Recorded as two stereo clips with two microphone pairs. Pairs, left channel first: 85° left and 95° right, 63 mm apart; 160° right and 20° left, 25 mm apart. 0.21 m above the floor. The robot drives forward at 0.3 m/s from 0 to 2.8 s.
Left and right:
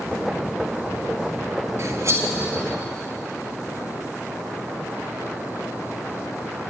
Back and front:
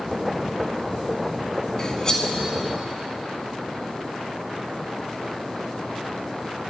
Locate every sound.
1.8 s cutlery clinking: 95° right, 1.2 m; by 2.3 s 105° right, 1.2 m